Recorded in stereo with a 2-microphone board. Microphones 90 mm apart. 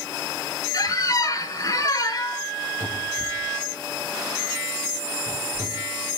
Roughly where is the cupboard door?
Right.